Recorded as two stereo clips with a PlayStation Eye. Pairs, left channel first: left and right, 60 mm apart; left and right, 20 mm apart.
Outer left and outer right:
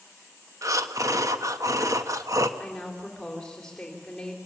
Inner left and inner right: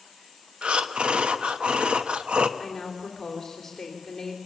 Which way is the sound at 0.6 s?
65° right (ahead or behind).